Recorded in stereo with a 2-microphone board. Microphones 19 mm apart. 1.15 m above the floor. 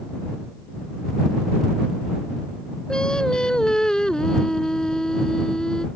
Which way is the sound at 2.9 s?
40° left (ahead or behind).